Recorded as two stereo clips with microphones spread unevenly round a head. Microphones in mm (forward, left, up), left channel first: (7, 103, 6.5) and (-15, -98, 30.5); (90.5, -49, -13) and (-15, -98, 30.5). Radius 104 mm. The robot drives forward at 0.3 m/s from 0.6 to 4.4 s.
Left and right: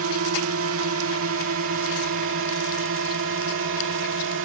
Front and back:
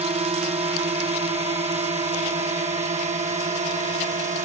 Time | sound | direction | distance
0.0 | a drone | 115° right | ?